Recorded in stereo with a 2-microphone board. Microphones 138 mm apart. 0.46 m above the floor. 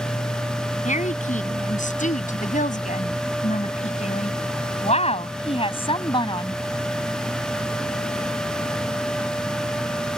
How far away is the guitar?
I don't hear a guitar.